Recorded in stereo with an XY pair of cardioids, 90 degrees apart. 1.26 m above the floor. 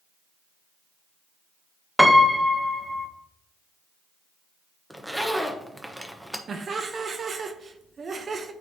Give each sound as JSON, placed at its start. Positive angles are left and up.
{"t": 2.0, "sound": "a piano", "azimuth_deg": 0, "distance_m": 0.8}
{"t": 4.9, "sound": "a zipper", "azimuth_deg": -5, "distance_m": 1.0}
{"t": 6.5, "sound": "laughter", "azimuth_deg": -50, "distance_m": 0.7}